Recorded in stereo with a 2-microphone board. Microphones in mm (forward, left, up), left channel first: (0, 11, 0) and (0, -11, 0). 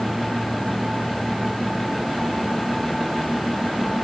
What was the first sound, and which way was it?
Only background noise.